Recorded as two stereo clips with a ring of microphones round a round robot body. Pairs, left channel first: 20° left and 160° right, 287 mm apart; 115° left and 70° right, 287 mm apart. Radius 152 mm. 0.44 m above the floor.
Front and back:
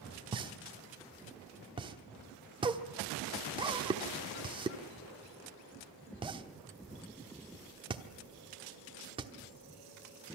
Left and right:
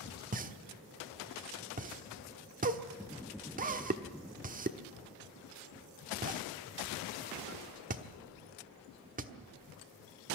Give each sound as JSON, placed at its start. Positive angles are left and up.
{"t": 0.3, "sound": "a pop", "azimuth_deg": -100, "distance_m": 1.2}